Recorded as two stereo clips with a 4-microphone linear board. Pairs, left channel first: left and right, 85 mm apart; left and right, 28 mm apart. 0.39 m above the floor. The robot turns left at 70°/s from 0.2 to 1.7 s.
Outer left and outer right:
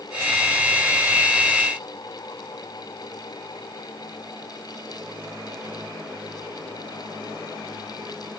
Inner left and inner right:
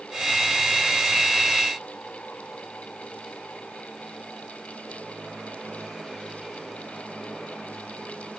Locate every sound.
Only background noise.